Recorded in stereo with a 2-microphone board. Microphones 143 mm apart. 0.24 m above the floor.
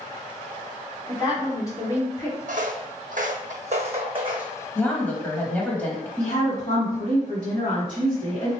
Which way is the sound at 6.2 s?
40° left (ahead or behind).